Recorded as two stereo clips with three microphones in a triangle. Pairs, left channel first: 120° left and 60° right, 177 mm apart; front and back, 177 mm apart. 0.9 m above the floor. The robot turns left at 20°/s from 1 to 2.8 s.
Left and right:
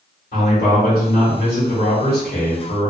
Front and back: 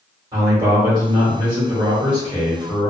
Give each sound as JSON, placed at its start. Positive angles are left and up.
{"t": 0.3, "sound": "a man speaking", "azimuth_deg": 120, "distance_m": 1.6}